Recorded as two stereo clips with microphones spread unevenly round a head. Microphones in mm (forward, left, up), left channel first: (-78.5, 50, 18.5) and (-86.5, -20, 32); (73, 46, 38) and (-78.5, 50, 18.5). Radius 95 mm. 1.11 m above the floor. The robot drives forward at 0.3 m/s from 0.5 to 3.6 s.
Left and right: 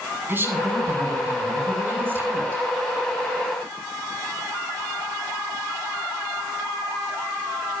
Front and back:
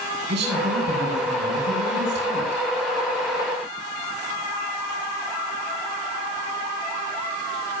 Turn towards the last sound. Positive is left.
turn(degrees=-155)